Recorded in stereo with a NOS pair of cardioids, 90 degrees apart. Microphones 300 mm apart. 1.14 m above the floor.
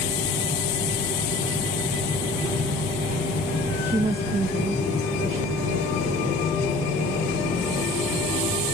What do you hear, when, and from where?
3.9 s a woman speaking: 5° right, 0.7 m; by 8.6 s 50° right, 5.5 m